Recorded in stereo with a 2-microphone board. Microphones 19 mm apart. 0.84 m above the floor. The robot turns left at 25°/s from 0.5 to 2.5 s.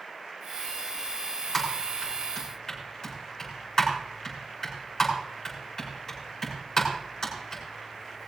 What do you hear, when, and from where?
1.5 s typing on a keyboard: centre (ahead or behind), 6.5 m; by 8.3 s 25° left (ahead or behind), 6.5 m